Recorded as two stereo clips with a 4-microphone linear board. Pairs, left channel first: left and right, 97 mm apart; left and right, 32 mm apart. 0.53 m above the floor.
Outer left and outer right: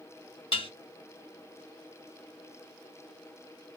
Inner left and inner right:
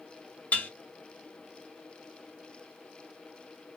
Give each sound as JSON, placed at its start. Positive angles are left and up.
{"t": 0.5, "sound": "dishes clattering", "side_deg": 70, "distance_m": 1.7}